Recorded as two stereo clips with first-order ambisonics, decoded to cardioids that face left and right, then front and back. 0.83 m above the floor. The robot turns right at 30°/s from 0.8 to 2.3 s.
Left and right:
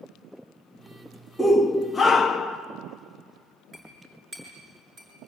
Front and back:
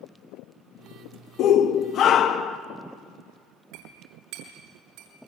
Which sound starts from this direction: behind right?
A clink, at 3.7 s.